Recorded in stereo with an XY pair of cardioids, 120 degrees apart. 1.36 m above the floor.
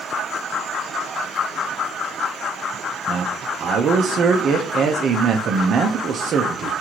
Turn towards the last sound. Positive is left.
turn(degrees=-50)